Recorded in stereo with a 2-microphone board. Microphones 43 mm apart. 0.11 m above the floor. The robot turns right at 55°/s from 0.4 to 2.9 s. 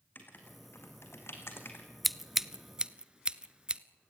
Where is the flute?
No flute in this recording.